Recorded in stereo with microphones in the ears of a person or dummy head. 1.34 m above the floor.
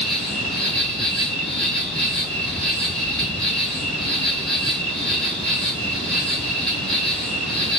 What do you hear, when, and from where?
0.0 s an insect: centre (ahead or behind), 1.6 m